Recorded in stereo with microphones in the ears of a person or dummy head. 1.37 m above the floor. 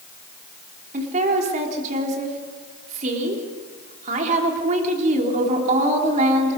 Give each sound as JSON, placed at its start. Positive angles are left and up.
{"t": 0.9, "sound": "a woman speaking", "side_deg": -40, "distance_m": 3.5}